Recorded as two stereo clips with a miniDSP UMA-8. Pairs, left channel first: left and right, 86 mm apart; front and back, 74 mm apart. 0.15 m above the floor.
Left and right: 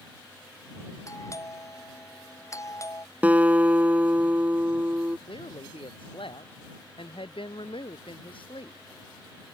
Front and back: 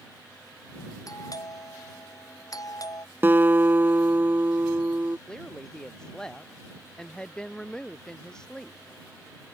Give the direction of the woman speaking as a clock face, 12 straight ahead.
9 o'clock.